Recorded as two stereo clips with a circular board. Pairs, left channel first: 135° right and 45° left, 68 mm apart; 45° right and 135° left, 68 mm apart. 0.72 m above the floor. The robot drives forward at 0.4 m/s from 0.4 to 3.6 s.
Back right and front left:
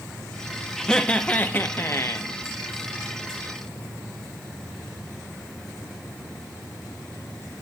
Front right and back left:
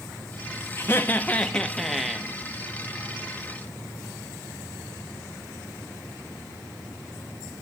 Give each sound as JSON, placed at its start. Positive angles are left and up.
{"t": 0.8, "sound": "laughter", "azimuth_deg": -60, "distance_m": 0.7}